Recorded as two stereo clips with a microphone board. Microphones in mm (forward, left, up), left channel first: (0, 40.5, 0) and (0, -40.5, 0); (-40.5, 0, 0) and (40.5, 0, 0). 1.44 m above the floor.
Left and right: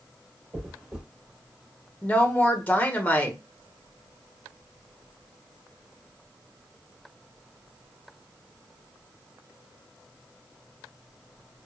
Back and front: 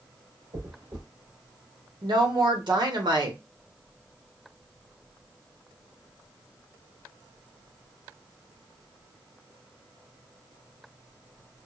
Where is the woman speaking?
20° left, 1.0 m.